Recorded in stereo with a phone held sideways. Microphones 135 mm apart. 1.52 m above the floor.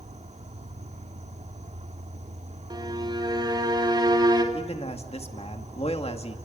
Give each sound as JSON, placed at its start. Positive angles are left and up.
{"t": 0.0, "sound": "an insect", "side_deg": -55, "distance_m": 1.9}
{"t": 2.7, "sound": "a violin", "side_deg": -35, "distance_m": 3.5}
{"t": 4.5, "sound": "a man speaking", "side_deg": 50, "distance_m": 2.5}